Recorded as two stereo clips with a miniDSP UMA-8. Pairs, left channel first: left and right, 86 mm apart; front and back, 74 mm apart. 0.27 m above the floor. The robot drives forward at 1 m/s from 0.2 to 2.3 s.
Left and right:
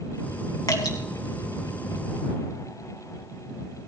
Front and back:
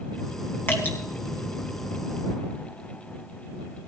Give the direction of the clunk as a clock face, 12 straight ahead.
No clunk in this recording.